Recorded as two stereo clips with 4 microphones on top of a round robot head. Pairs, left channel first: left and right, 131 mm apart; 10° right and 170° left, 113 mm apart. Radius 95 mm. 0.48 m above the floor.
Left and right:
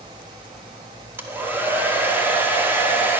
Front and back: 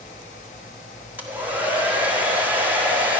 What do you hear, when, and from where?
1.2 s a hair dryer: 140° right, 1.3 m